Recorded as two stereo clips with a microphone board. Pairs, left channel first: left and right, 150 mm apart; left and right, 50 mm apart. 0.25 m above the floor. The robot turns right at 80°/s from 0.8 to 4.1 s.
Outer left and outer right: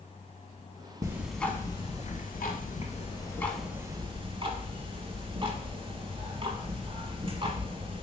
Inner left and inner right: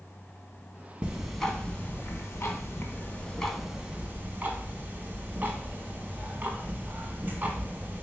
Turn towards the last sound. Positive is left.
turn(degrees=-140)